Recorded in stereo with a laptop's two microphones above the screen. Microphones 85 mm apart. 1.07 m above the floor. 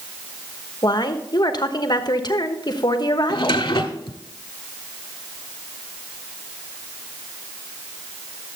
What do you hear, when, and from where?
0.8 s a woman speaking: 55° left (ahead or behind), 1.1 m
3.3 s a drawer: 70° left (ahead or behind), 1.5 m